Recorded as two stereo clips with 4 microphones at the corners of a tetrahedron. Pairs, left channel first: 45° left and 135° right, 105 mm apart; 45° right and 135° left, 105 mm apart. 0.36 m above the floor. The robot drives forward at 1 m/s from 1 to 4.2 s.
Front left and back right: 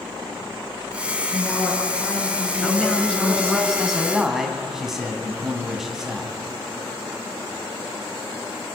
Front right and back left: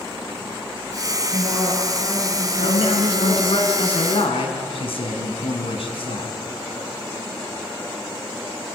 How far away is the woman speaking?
About 6.5 m.